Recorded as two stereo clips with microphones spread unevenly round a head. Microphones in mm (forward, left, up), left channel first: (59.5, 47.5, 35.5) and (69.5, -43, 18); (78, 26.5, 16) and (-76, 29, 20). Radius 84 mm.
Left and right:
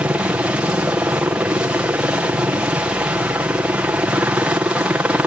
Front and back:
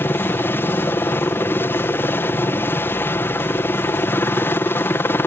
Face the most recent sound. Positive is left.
turn(degrees=-55)